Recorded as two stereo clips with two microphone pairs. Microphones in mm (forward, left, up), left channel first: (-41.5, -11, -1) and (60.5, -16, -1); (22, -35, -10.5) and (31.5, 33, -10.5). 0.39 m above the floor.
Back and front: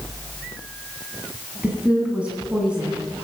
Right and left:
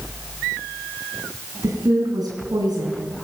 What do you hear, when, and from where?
1.6 s a woman speaking: 75° left, 3.5 m